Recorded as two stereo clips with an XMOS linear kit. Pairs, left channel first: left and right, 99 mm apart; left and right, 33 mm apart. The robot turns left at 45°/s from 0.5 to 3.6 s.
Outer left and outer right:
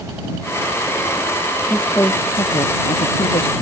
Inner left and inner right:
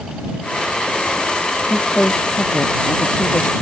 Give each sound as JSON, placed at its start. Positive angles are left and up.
{"t": 1.7, "sound": "a woman speaking", "azimuth_deg": 170}